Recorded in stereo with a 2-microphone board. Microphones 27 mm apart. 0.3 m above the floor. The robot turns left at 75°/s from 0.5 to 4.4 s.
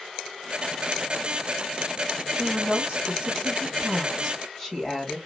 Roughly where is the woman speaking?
Ahead right.